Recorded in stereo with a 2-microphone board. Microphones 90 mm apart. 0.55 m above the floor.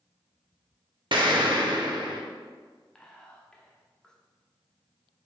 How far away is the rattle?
No rattle in this recording.